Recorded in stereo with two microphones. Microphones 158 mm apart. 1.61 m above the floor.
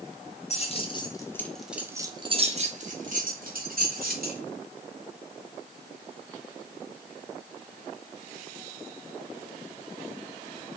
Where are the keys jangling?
40° left (ahead or behind), 1.1 m; by 4.4 s 70° right (ahead or behind), 1.9 m.